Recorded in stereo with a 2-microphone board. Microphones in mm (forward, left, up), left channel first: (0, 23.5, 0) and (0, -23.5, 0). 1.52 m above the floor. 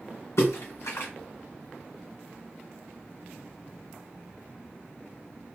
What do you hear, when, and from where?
0.4 s a splash: 80° left, 1.7 m